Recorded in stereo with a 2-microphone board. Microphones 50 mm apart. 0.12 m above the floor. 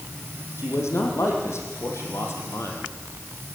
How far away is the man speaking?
About 6.5 m.